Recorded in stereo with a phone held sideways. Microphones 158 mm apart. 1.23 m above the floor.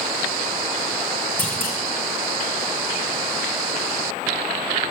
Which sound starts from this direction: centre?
A clunk, at 1.4 s.